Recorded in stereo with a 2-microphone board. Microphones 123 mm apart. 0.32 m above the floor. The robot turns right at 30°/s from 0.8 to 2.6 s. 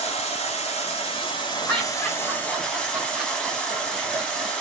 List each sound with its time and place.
0.0 s running water: 115° left, 1.2 m; by 4.6 s 170° left, 1.2 m
1.7 s laughter: 10° left (ahead or behind), 1.2 m; by 4.5 s 5° right (ahead or behind), 1.2 m